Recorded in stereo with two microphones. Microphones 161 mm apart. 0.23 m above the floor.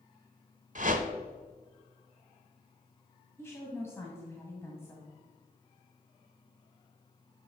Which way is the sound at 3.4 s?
15° left (ahead or behind).